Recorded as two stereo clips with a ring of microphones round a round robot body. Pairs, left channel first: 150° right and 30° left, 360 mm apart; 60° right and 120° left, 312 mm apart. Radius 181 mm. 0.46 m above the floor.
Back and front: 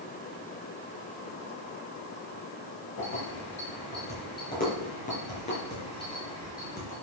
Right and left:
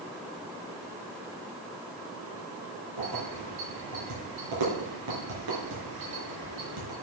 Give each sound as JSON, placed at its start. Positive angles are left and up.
{"t": 3.0, "sound": "keys jangling", "azimuth_deg": 150, "distance_m": 5.0}